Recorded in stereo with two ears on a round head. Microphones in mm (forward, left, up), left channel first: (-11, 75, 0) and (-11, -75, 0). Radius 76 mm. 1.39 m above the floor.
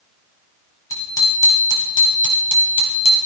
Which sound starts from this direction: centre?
A bicycle bell, at 0.9 s.